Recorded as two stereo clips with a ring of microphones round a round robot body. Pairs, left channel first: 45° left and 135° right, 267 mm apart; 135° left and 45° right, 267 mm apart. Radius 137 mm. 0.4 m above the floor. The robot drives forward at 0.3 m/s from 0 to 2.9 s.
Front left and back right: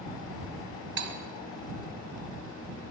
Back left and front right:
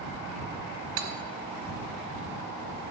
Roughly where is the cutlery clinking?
Right.